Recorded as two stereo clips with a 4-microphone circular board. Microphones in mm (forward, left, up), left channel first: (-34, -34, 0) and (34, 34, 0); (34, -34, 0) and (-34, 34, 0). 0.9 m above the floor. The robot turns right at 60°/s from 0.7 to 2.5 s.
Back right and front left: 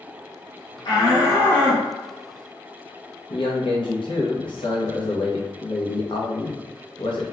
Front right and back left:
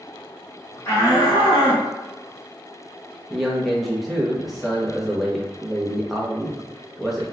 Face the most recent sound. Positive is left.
turn(degrees=-135)